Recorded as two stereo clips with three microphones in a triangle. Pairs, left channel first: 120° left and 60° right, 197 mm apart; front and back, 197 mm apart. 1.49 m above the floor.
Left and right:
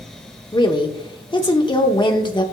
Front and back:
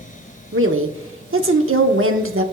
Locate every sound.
0.5 s a woman speaking: 175° right, 0.7 m